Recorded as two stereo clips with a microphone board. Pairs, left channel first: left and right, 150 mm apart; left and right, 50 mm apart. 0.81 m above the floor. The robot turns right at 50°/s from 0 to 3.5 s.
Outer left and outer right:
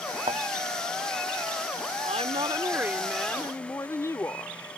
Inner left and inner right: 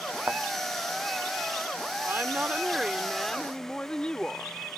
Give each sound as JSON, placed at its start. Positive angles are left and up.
{"t": 0.3, "sound": "a thud", "side_deg": -45}
{"t": 2.0, "sound": "a woman speaking", "azimuth_deg": -55}